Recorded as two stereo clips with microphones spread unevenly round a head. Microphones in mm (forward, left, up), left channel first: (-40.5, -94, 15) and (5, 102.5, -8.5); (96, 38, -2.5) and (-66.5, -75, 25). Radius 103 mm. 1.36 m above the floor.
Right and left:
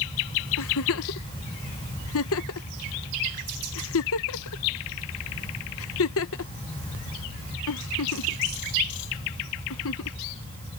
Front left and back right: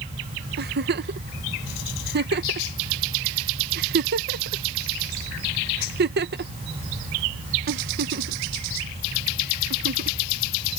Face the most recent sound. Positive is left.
turn(degrees=-110)